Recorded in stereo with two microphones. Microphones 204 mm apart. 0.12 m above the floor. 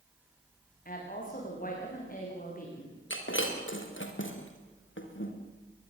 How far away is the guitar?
No guitar in this recording.